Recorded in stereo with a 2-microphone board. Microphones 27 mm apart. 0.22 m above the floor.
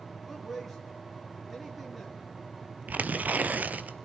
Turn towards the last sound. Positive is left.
turn(degrees=-70)  # may be behind; listen again after turning